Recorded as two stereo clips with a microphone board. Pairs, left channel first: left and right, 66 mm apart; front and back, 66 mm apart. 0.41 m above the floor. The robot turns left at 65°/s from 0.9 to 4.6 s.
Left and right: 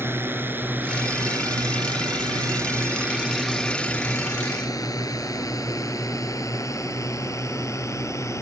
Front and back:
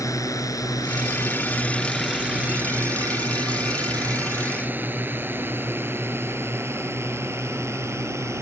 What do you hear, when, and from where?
0.0 s a drone: 35° right; by 8.4 s 135° left